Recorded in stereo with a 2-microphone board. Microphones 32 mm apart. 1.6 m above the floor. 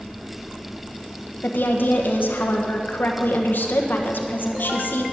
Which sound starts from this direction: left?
A woman speaking, at 1.4 s.